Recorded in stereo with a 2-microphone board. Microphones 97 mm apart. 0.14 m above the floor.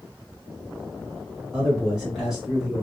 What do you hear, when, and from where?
1.5 s a man speaking: 5° right (ahead or behind), 1.4 m